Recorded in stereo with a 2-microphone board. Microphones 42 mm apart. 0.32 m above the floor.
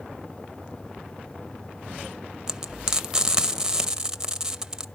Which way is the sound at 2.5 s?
20° right (ahead or behind).